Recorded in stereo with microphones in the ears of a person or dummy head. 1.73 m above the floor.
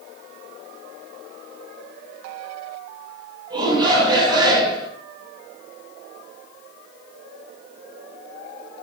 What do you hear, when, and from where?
3.5 s a shout: 25° right (ahead or behind), 7 m